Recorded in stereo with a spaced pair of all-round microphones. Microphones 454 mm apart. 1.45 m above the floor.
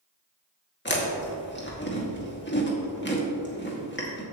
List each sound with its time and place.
0.8 s chewing: 25° left (ahead or behind), 2.0 m